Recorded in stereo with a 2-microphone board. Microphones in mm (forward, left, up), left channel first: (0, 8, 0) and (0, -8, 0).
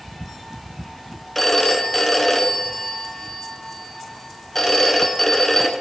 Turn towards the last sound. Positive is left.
turn(degrees=15)  # may be behind; listen again after turning